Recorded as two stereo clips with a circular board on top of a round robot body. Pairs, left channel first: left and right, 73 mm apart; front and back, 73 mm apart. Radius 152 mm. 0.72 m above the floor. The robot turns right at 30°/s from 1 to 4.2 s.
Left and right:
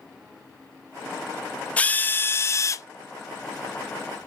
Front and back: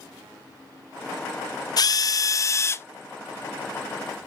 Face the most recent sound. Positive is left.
turn(degrees=95)